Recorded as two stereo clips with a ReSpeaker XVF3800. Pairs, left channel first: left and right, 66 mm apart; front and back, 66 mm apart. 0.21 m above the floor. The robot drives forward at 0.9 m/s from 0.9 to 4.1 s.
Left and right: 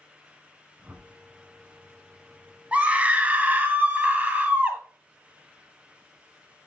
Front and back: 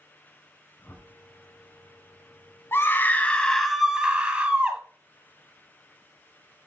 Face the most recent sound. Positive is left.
turn(degrees=-120)